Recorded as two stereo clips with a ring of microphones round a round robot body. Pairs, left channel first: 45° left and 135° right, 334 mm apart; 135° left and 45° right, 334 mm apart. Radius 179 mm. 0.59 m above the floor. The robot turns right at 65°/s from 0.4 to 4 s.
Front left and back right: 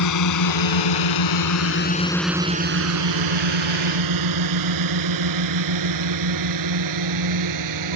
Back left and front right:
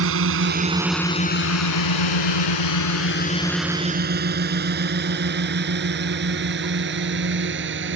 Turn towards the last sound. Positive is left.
turn(degrees=-100)